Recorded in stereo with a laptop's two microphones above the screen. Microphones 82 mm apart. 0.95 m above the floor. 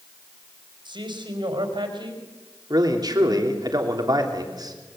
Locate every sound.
0.8 s a man speaking: 70° right (ahead or behind), 4.5 m
2.7 s a man speaking: 55° right (ahead or behind), 3 m